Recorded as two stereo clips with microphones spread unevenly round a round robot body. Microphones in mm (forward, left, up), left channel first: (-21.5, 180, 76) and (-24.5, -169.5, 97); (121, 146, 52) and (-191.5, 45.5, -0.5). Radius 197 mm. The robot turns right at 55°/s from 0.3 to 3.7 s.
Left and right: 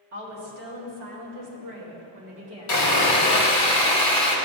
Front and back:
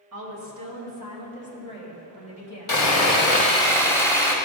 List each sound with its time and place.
0.1 s a woman speaking: 140° right, 2.0 m; by 3.7 s 45° left, 2.0 m
2.7 s sawing: 50° left, 1.5 m; by 4.3 s 105° left, 1.5 m